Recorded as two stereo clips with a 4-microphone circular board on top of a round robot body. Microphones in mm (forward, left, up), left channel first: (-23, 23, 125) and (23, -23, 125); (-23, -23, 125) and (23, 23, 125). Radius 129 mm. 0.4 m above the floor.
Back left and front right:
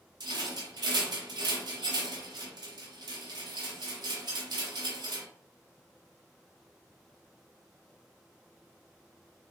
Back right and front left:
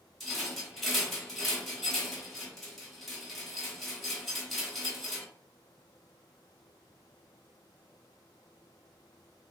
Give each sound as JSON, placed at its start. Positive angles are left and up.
{"t": 0.2, "sound": "a rattle", "azimuth_deg": -50, "distance_m": 0.9}